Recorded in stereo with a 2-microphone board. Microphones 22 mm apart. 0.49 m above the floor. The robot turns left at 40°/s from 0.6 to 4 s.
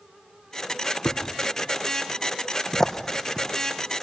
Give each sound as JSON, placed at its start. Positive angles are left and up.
{"t": 1.1, "sound": "a thud", "side_deg": 85, "distance_m": 3.0}